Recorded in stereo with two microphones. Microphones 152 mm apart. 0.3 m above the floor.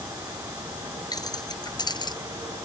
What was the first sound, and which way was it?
Keys jangling, 25° left (ahead or behind).